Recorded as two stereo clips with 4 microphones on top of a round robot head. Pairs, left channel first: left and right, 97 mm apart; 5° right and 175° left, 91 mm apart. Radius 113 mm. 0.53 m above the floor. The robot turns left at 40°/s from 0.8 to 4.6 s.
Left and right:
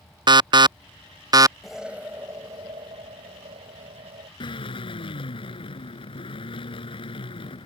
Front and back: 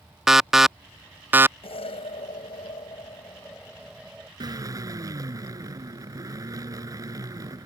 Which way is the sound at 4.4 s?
130° left.